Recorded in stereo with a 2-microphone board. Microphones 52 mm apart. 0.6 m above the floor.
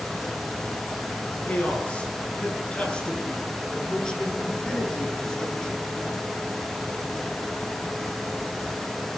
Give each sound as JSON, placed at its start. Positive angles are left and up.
{"t": 1.4, "sound": "a man speaking", "side_deg": 25, "distance_m": 8.5}